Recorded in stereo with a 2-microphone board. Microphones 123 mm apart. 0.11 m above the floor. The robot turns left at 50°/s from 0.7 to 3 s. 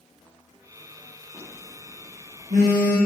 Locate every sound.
1.3 s a phone buzzing: 15° right (ahead or behind), 4.5 m; by 3.0 s 80° right, 4.5 m